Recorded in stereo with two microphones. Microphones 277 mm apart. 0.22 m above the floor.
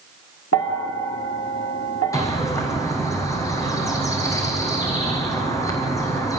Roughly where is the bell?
Left.